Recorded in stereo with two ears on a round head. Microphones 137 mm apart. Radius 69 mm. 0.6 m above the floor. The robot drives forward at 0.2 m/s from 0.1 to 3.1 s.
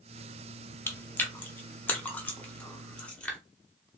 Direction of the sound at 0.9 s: 15° left (ahead or behind).